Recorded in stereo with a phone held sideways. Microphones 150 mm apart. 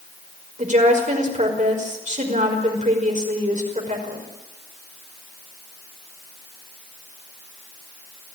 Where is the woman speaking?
55° right (ahead or behind), 5 m.